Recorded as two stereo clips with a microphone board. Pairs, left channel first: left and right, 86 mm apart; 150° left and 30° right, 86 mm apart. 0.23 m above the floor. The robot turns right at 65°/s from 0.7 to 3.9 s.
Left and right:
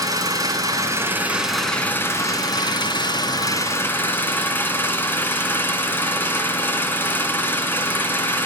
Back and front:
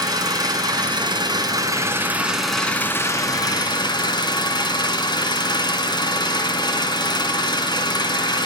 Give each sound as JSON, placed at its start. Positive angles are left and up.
{"t": 0.0, "sound": "an engine running", "azimuth_deg": -55, "distance_m": 2.0}